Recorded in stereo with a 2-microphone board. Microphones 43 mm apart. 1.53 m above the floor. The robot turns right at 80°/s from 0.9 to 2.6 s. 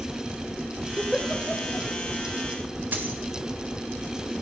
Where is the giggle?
25° right (ahead or behind), 1.0 m; by 1.9 s 45° left (ahead or behind), 1.0 m.